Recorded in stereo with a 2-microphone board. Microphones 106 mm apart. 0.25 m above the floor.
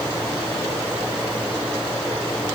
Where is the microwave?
No microwave in this recording.